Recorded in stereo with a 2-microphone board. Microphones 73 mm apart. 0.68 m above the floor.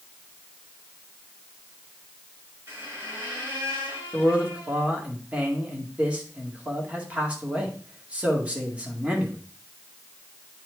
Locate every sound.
2.7 s a squeak: 35° right (ahead or behind), 4.5 m
4.1 s a man speaking: 15° right (ahead or behind), 2.0 m